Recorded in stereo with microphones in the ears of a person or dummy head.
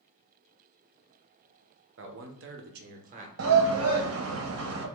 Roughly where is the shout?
Right.